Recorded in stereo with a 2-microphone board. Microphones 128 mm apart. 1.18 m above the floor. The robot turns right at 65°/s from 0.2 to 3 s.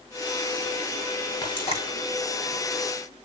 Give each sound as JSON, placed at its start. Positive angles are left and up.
{"t": 1.4, "sound": "frying", "side_deg": 30, "distance_m": 6.5}